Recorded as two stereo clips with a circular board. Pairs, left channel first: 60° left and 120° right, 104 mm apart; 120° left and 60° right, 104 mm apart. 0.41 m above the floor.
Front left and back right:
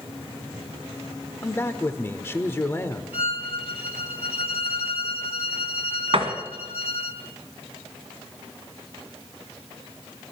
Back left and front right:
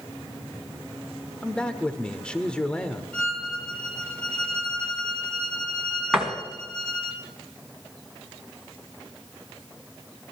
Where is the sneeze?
I don't hear a sneeze.